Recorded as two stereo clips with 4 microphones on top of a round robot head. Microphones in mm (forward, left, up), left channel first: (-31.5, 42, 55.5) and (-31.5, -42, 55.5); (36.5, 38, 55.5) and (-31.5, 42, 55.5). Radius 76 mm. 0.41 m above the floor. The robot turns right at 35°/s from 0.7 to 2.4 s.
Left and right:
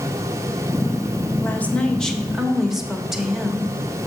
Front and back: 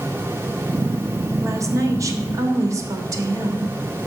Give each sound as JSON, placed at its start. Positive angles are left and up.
{"t": 1.4, "sound": "a woman speaking", "azimuth_deg": 150, "distance_m": 1.2}